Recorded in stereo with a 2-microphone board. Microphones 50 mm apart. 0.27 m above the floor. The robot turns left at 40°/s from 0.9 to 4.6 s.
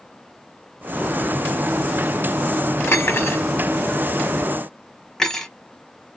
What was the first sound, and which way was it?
Cutlery clinking, 55° left (ahead or behind).